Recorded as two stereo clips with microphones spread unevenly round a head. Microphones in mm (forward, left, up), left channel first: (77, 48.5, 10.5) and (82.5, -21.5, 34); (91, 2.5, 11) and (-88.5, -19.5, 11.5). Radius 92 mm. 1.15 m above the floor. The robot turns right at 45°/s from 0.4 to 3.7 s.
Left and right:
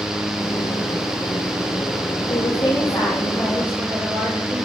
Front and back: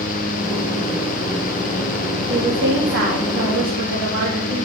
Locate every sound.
2.3 s a woman speaking: 135° left, 2.5 m; by 4.7 s 160° right, 2.5 m